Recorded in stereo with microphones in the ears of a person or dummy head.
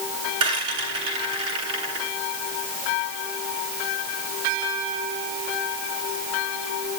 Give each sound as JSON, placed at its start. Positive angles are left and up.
{"t": 0.4, "sound": "a rattle", "side_deg": -25, "distance_m": 8.5}